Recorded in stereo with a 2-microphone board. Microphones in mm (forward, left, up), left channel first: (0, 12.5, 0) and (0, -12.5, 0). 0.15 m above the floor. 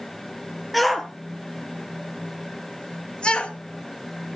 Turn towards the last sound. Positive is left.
turn(degrees=40)  # may be behind; listen again after turning